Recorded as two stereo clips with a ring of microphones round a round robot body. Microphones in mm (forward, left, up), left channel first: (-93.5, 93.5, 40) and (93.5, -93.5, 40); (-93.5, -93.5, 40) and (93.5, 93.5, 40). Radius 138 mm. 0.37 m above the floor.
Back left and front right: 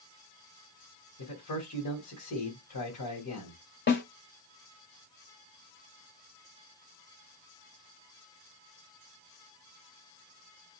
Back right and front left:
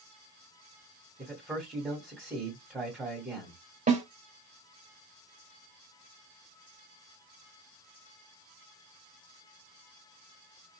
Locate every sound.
1.2 s a man speaking: 130° left, 2.5 m
3.9 s a snare drum: 100° left, 1.7 m